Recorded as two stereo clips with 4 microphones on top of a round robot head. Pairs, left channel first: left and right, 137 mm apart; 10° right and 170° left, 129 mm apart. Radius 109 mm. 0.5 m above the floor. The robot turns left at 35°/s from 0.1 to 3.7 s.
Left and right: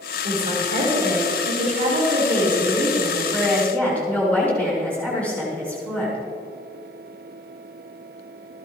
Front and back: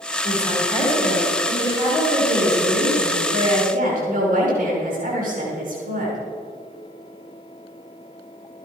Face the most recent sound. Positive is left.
turn(degrees=170)